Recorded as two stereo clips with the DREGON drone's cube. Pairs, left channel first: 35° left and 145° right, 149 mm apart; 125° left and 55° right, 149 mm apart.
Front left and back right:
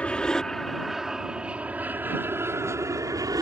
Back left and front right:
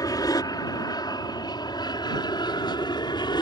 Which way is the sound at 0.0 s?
105° left.